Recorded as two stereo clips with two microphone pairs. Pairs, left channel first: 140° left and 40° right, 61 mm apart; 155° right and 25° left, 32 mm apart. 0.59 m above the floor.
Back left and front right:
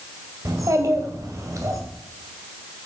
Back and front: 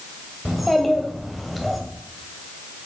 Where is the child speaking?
65° right, 2.0 m.